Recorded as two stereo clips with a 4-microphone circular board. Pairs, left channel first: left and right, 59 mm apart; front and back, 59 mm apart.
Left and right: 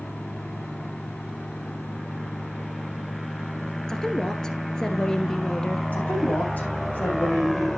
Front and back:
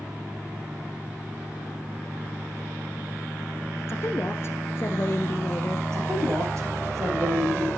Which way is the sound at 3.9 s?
15° left.